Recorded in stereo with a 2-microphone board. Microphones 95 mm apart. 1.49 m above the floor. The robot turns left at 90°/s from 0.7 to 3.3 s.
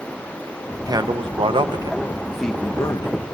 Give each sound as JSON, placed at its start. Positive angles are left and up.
{"t": 0.9, "sound": "a man speaking", "side_deg": -40, "distance_m": 0.8}